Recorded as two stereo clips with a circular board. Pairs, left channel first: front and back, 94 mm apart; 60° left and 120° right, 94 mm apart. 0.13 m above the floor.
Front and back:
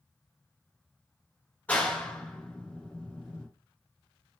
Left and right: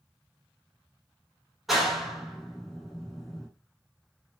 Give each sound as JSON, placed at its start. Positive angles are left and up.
{"t": 1.7, "sound": "a clap", "azimuth_deg": -35, "distance_m": 0.9}